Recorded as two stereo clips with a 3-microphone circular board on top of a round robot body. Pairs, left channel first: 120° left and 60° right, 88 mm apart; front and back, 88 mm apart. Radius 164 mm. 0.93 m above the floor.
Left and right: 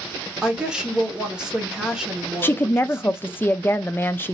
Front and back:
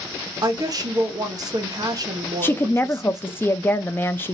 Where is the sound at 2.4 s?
60° left, 0.5 m.